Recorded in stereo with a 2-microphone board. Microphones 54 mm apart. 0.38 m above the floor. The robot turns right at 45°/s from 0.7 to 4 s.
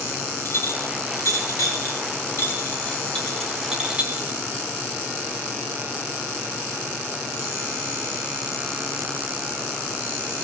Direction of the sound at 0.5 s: 50° left (ahead or behind).